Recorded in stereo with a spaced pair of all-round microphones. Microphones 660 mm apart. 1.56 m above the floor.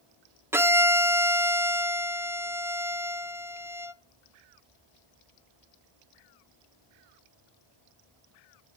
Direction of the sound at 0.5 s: 5° right (ahead or behind).